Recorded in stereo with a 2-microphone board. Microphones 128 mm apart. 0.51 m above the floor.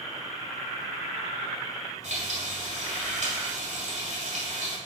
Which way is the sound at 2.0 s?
65° right (ahead or behind).